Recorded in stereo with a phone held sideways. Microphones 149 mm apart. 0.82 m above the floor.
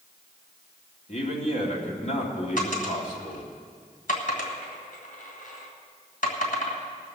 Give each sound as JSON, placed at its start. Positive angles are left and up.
{"t": 1.1, "sound": "a man speaking", "side_deg": 50, "distance_m": 2.5}
{"t": 2.6, "sound": "a dropped coin", "side_deg": 65, "distance_m": 2.0}